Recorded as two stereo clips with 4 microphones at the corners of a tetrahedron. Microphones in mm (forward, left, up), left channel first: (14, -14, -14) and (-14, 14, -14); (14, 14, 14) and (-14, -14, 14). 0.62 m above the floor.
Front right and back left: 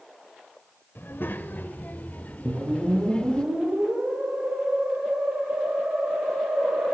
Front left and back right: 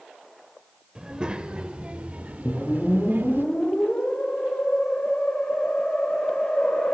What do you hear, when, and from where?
0.9 s a child speaking: 65° right, 2 m; by 3.5 s 110° right, 1.4 m
2.5 s a whoosh: 110° left, 6.5 m